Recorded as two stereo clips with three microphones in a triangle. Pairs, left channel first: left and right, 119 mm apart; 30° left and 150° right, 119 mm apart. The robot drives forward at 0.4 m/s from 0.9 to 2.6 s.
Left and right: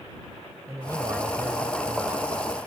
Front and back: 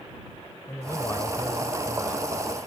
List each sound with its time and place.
0.7 s a man speaking: 35° right; by 2.3 s 45° right